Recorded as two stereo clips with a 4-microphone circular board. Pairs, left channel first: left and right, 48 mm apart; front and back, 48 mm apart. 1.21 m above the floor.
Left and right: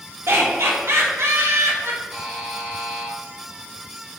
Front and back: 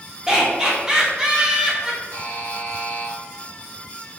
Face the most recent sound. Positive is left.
turn(degrees=-10)